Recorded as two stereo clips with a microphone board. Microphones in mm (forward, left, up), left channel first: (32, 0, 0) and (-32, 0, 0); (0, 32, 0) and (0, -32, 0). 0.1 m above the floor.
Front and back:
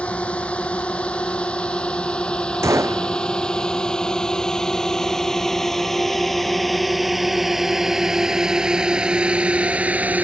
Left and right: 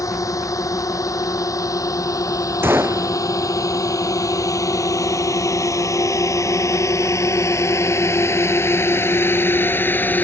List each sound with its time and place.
0.0 s a drone: 70° left; by 10.2 s 130° left
2.6 s a gunshot: 140° right